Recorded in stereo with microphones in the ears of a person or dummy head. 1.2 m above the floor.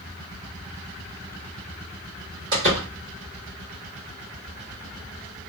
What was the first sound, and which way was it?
A door slam, 75° right (ahead or behind).